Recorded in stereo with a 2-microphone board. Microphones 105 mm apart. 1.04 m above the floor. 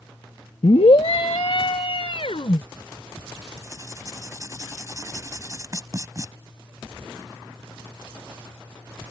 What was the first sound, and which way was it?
A scream, 65° left (ahead or behind).